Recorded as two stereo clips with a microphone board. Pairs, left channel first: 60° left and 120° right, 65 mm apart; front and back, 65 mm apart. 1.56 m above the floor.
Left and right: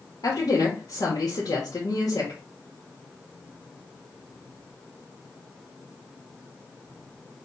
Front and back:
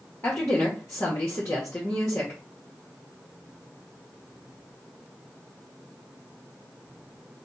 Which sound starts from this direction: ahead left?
A woman speaking, at 0.2 s.